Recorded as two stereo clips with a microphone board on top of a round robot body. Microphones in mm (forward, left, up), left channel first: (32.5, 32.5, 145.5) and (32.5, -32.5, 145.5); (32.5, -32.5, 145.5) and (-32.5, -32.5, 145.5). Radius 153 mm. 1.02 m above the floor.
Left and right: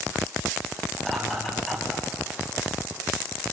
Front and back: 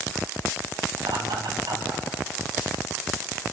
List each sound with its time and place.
1.0 s laughter: 175° left, 8 m; by 2.0 s straight behind, 8.5 m